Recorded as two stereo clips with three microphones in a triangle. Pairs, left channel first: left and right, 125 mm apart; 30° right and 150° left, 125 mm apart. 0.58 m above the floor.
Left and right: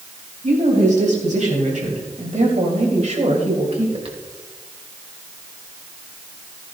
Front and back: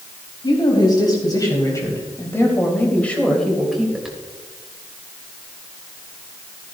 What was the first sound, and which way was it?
A woman speaking, 80° right.